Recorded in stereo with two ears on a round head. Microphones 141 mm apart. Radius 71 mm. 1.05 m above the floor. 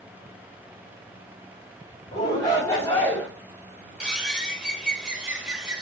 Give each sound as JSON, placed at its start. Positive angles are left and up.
{"t": 2.1, "sound": "a shout", "side_deg": 25, "distance_m": 2.5}
{"t": 4.0, "sound": "a bird", "side_deg": -5, "distance_m": 1.0}